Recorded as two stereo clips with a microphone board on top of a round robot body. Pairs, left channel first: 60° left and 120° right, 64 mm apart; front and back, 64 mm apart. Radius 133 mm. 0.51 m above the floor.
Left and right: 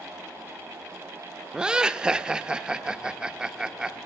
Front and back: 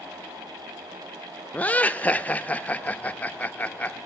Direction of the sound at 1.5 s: 50° right.